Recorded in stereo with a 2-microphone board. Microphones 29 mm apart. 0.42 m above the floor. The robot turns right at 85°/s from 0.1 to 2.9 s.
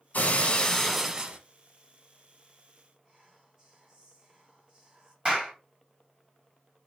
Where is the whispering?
15° right (ahead or behind), 2.5 m.